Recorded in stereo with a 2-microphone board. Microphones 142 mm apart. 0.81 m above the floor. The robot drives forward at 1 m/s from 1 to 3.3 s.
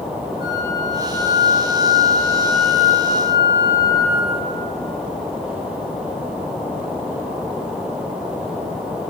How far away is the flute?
About 1.9 m.